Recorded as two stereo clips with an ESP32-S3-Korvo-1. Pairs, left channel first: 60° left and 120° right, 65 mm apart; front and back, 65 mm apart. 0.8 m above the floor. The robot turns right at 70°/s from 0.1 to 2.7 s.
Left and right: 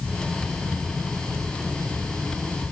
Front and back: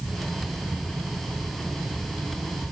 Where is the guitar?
I don't hear a guitar.